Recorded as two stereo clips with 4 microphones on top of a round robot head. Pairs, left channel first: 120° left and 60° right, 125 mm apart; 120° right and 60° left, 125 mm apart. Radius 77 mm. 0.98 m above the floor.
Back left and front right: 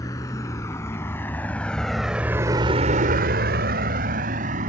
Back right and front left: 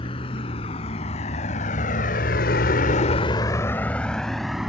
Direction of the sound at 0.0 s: 170° right.